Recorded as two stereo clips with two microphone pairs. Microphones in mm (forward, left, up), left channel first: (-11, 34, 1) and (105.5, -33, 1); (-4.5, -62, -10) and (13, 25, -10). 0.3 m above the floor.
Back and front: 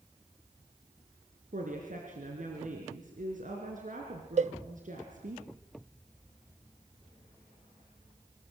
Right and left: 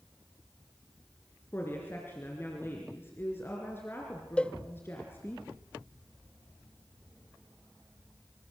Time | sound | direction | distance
1.5 | a woman speaking | 40° right | 3.5 m
4.4 | a cowbell | 25° right | 0.6 m